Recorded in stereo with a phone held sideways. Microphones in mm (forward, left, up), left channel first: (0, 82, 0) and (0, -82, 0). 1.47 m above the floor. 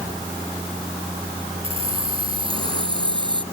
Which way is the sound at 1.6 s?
35° right (ahead or behind).